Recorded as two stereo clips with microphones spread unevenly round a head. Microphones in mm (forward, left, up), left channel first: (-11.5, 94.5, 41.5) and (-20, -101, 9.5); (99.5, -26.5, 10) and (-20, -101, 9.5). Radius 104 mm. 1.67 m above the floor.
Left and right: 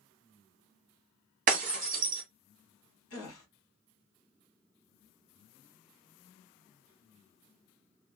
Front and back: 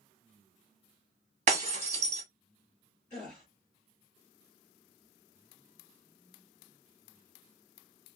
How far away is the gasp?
About 1.3 m.